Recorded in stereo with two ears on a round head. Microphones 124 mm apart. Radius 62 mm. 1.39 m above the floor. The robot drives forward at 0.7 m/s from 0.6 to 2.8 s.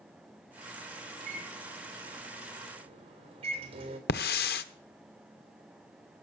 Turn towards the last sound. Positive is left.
turn(degrees=80)